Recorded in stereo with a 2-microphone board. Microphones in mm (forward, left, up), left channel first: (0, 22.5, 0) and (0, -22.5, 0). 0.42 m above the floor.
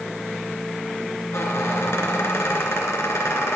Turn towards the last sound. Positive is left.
turn(degrees=85)